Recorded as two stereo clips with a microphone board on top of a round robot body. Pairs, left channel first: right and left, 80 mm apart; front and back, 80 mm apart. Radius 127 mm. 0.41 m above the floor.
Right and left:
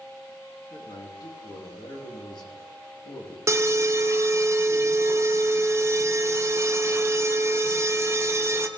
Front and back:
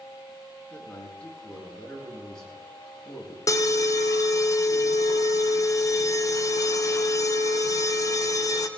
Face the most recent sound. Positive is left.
turn(degrees=40)